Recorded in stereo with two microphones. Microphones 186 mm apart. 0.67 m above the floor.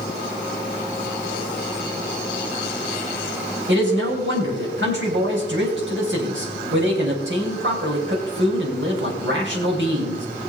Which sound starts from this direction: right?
A man speaking, at 3.7 s.